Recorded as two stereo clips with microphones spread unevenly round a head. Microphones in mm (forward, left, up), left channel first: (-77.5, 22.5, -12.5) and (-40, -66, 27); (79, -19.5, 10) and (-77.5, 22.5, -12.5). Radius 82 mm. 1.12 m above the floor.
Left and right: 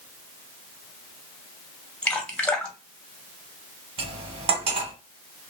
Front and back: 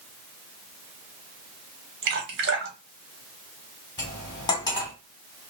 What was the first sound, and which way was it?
Dripping, straight behind.